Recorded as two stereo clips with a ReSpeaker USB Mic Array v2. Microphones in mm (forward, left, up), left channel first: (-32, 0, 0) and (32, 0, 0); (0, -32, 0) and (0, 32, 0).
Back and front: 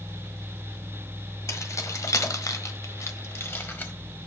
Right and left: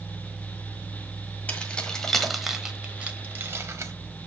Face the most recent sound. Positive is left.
turn(degrees=125)